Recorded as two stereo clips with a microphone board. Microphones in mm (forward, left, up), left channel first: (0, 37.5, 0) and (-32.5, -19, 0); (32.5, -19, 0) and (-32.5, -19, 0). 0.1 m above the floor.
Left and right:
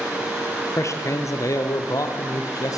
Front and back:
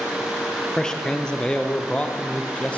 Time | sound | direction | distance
0.8 | a man speaking | 80° left | 2.5 m